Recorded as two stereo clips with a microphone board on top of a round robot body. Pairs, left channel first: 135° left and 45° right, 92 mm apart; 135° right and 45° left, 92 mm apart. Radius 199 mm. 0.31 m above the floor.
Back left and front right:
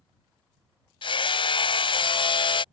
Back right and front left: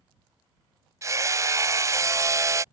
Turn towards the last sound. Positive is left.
turn(degrees=105)